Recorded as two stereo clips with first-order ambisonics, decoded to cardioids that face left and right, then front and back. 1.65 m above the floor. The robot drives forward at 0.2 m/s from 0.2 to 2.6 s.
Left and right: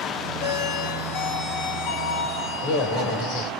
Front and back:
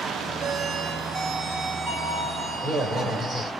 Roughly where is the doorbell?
Behind left.